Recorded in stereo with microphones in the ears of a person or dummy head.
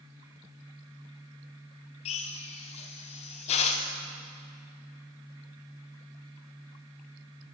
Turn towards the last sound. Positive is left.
turn(degrees=40)  # may be behind; listen again after turning